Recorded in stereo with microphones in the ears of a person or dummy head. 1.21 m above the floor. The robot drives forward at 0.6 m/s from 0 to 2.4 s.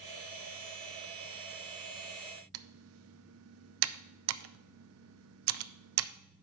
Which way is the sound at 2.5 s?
70° right (ahead or behind).